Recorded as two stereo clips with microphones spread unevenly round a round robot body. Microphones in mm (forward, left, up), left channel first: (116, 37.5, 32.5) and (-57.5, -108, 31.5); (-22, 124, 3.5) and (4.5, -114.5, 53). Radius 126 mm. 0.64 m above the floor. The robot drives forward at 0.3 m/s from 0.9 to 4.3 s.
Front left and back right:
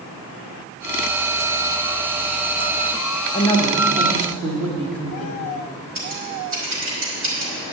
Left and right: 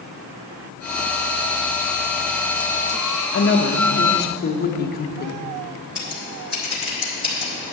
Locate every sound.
3.3 s a woman speaking: 105° left, 1.2 m; by 5.4 s 120° left, 1.3 m
6.0 s scissors: 175° right, 3 m